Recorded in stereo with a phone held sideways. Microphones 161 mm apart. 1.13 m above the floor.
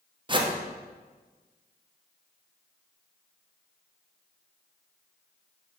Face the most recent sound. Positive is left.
turn(degrees=-30)  # may be behind; listen again after turning